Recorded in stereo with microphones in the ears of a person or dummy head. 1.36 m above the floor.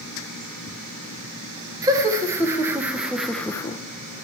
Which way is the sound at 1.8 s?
15° right (ahead or behind).